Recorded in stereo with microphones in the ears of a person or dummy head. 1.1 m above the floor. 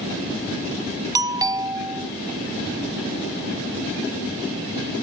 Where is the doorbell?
15° right (ahead or behind).